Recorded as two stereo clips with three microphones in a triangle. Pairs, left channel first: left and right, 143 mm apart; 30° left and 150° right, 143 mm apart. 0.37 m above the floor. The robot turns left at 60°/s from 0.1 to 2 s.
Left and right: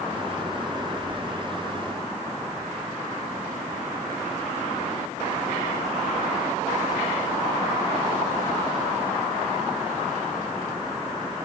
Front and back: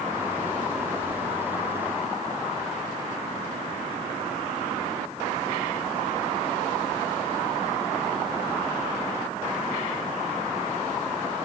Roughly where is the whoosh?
Behind left.